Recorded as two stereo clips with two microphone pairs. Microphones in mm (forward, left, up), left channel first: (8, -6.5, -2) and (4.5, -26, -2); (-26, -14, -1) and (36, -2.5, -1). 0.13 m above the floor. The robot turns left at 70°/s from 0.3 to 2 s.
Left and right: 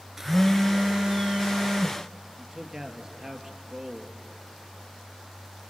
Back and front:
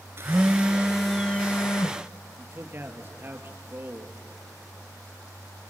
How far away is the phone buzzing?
About 0.7 m.